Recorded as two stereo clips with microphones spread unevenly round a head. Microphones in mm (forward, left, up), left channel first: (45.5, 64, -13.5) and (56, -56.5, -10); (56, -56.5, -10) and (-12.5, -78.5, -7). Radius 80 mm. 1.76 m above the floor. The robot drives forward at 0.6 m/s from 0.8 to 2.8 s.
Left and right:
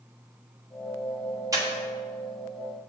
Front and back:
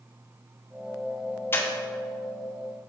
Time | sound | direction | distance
1.5 | breathing | 35° right | 1.1 m